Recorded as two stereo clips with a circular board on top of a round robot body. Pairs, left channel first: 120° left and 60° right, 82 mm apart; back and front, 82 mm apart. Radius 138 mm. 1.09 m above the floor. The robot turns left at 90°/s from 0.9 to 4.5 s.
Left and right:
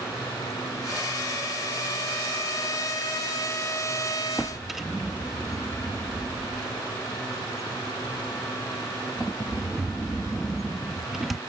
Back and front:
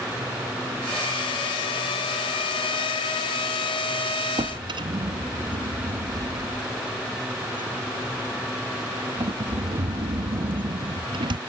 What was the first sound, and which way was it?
A drawer, 40° left.